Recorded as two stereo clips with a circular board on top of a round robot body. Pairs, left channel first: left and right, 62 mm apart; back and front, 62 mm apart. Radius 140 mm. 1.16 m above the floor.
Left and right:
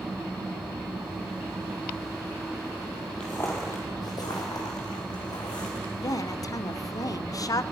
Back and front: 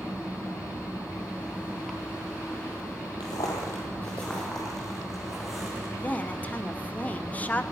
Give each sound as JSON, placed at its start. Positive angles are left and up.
{"t": 3.2, "sound": "footsteps", "azimuth_deg": 170, "distance_m": 1.5}
{"t": 6.0, "sound": "a woman speaking", "azimuth_deg": 110, "distance_m": 0.7}